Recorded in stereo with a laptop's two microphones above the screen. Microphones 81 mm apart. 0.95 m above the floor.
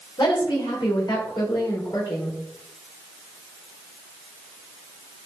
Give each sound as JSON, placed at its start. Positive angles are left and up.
{"t": 0.2, "sound": "a woman speaking", "side_deg": 75, "distance_m": 3.0}